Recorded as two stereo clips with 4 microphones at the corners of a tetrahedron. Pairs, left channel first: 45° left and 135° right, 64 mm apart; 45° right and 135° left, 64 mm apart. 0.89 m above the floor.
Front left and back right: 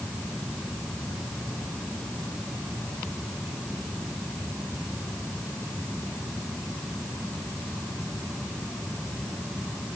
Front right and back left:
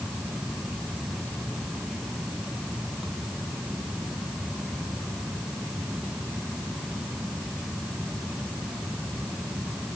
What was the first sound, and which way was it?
Only background noise.